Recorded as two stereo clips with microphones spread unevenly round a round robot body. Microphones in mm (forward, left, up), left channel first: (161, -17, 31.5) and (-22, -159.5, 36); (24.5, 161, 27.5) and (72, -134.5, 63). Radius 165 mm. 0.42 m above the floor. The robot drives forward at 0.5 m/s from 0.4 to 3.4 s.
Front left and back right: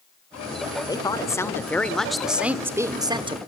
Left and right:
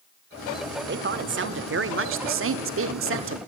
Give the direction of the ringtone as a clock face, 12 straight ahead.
No ringtone in this recording.